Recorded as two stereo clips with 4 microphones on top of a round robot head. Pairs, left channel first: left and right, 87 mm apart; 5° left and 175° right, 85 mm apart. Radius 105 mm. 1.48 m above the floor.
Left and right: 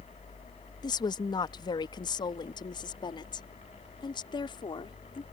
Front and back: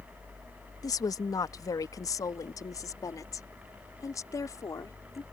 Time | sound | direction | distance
0.8 | a woman speaking | 50° left | ?